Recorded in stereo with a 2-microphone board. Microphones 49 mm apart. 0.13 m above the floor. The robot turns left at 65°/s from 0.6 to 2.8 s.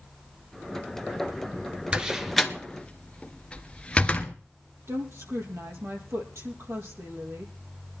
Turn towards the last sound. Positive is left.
turn(degrees=-65)  # may be behind; listen again after turning